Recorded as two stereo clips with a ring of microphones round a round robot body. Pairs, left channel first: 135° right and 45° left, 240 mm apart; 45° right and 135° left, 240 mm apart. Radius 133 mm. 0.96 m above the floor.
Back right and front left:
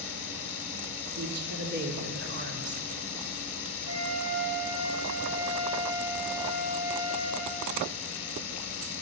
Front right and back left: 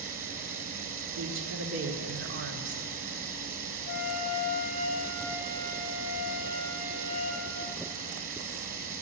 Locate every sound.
0.0 s running water: 165° right, 2 m
1.2 s a woman speaking: 95° left, 2 m
3.9 s a flute: 20° left, 4.5 m